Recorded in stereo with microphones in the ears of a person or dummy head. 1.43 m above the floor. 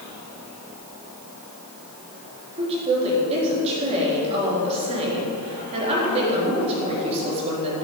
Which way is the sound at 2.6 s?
35° right (ahead or behind).